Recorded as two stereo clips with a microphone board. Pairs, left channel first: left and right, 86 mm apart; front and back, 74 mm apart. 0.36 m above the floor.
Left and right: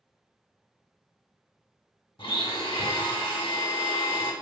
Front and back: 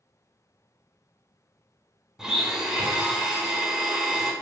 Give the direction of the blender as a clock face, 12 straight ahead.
9 o'clock.